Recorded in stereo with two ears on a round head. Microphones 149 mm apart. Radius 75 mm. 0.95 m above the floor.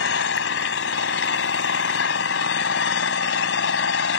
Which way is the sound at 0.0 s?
85° left.